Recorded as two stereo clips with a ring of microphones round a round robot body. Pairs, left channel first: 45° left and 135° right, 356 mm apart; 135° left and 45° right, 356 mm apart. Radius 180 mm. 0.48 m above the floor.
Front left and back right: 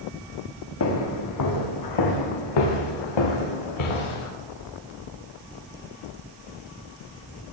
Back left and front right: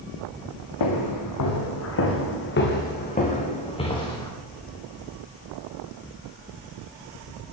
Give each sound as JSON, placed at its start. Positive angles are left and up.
{"t": 0.8, "sound": "footsteps", "azimuth_deg": 95, "distance_m": 2.5}